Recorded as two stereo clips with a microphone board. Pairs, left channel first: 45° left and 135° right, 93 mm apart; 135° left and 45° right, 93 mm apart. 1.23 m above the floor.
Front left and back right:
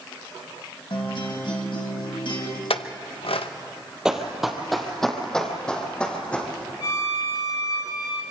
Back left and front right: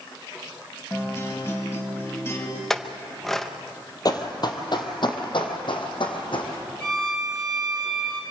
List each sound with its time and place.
0.9 s a guitar: 75° left, 2.5 m
2.7 s a clink: 50° left, 0.8 m
4.0 s running footsteps: 145° left, 1.7 m; by 6.5 s 120° left, 3 m
6.8 s a violin: 55° left, 7 m